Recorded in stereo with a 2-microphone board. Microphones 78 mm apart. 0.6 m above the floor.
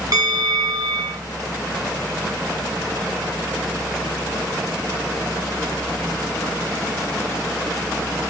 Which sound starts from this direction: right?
A bell, at 0.1 s.